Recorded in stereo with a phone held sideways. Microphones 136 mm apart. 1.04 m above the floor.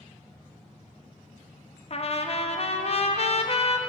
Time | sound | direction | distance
1.9 | a trumpet | 45° left (ahead or behind) | 0.6 m